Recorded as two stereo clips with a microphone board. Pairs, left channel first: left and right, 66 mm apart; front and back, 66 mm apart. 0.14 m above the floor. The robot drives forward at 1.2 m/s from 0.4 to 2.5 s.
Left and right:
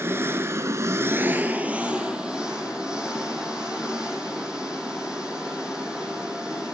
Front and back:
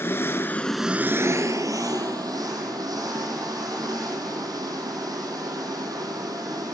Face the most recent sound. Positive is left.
turn(degrees=-165)